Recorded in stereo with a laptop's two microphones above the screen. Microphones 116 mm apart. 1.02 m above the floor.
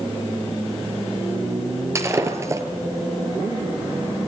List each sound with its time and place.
1.9 s breaking glass: 25° right (ahead or behind), 4 m